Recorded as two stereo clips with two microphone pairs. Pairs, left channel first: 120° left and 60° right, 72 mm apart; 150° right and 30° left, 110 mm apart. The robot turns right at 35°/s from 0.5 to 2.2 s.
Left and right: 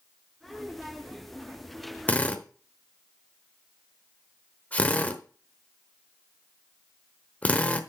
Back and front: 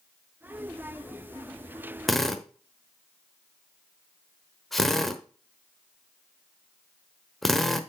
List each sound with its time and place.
2.1 s a drill: 125° left, 1.0 m; by 7.8 s 130° left, 1.0 m